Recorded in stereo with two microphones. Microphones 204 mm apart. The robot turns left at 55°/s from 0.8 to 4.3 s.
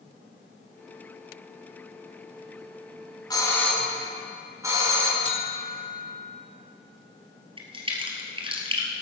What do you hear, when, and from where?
3.3 s a doorbell: 30° left, 1.9 m; by 5.2 s 25° right, 1.9 m
5.2 s a buzzer: 25° left (ahead or behind), 1.0 m
7.6 s a crack: 25° right (ahead or behind), 2.0 m